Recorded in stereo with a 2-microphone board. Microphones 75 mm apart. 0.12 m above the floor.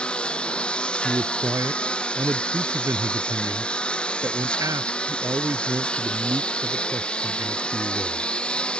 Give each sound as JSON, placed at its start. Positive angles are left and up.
{"t": 0.0, "sound": "a lawn mower", "side_deg": 15}
{"t": 1.0, "sound": "a man speaking", "side_deg": -45}